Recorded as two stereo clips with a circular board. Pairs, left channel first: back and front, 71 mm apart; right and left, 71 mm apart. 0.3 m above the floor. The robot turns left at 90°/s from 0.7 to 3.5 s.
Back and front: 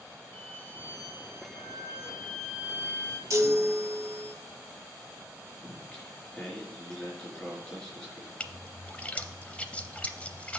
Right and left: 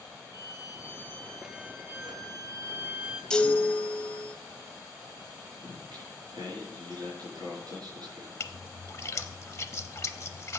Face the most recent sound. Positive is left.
turn(degrees=-115)